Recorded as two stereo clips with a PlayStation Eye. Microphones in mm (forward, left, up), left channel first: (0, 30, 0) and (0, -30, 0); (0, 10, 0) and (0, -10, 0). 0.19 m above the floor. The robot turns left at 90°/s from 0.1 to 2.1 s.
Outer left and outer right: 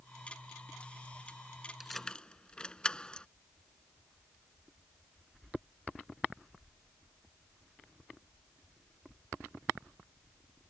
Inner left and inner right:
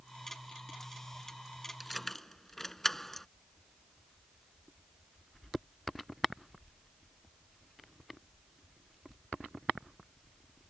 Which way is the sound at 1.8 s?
10° right (ahead or behind).